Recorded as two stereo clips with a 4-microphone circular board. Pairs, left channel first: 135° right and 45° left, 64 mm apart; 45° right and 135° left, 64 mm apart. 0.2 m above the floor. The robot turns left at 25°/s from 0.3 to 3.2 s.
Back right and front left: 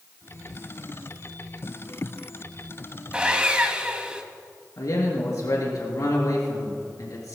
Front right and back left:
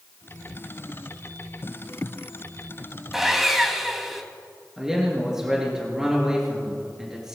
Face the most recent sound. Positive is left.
turn(degrees=-145)